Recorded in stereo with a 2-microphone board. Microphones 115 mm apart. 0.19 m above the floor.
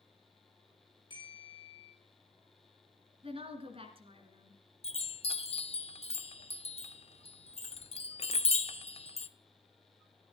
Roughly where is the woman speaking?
Right.